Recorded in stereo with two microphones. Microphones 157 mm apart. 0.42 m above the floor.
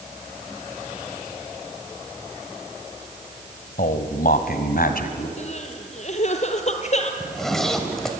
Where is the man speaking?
65° left (ahead or behind), 2.0 m; by 5.3 s 70° left (ahead or behind), 3 m.